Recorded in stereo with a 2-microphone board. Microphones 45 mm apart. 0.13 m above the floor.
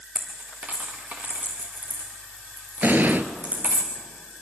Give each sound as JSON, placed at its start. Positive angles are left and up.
{"t": 0.1, "sound": "a dropped coin", "side_deg": -35, "distance_m": 2.5}
{"t": 2.8, "sound": "an explosion", "side_deg": -45, "distance_m": 0.8}